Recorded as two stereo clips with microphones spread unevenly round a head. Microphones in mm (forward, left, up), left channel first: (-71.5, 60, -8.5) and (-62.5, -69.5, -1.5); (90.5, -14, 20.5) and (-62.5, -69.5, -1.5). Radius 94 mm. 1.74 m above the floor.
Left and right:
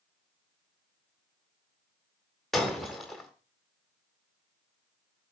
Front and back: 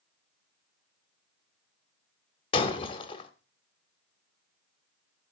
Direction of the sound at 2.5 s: Straight ahead.